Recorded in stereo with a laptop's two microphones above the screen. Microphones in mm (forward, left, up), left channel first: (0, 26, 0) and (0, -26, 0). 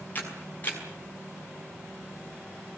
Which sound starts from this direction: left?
A camera shutter, at 0.1 s.